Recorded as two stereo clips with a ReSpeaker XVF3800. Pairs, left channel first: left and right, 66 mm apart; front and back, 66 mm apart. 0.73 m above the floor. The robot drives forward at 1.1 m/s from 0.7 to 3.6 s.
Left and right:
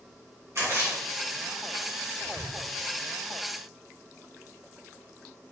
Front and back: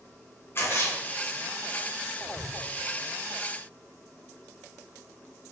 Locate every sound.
0.6 s a splash: 50° right, 4.5 m; by 2.5 s 75° right, 4 m